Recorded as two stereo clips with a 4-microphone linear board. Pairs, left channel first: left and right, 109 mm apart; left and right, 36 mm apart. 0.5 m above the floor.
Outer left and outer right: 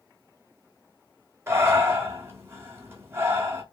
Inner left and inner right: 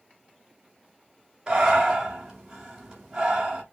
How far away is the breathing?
About 1.7 m.